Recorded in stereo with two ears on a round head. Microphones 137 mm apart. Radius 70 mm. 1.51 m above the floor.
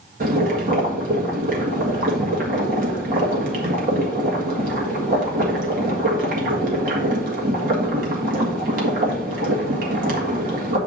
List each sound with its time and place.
0.2 s boiling: 55° right (ahead or behind), 1.7 m